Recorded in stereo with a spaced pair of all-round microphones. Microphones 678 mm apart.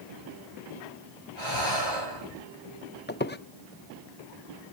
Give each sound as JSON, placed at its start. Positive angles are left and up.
{"t": 1.4, "sound": "breathing", "side_deg": 40, "distance_m": 9.0}
{"t": 3.1, "sound": "a squeak", "side_deg": 15, "distance_m": 0.6}